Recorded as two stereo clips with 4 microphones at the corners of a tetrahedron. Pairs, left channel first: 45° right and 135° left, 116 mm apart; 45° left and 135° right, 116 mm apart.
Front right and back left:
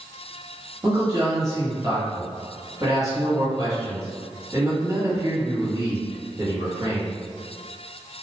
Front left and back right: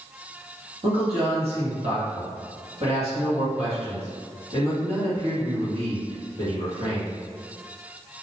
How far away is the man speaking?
About 1.3 m.